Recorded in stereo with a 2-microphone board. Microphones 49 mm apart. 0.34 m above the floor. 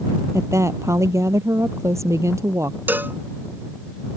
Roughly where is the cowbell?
Right.